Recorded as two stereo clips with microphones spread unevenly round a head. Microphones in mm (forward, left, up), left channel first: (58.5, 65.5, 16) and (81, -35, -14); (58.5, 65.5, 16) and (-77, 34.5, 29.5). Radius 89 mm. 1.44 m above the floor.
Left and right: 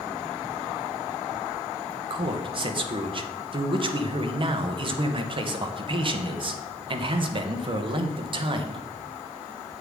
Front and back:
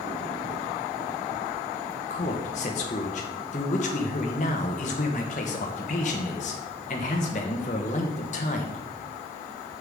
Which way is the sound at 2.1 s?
40° right.